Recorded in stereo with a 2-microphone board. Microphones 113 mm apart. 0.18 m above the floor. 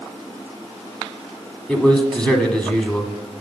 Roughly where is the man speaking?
Centre.